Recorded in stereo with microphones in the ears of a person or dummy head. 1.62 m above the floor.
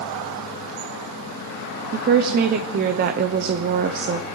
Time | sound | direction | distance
1.9 | a woman speaking | 50° right (ahead or behind) | 0.6 m